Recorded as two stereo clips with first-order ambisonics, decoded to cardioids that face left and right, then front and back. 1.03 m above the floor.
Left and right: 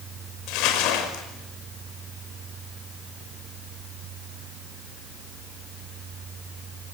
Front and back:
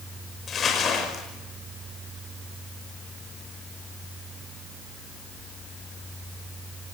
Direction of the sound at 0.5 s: 65° left.